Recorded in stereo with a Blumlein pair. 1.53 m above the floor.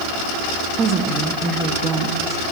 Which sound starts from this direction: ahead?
A woman speaking, at 0.8 s.